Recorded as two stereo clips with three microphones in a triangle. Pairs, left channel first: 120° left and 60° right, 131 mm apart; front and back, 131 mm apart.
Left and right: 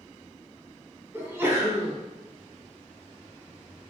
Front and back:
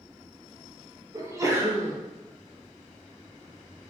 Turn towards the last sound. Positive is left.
turn(degrees=-125)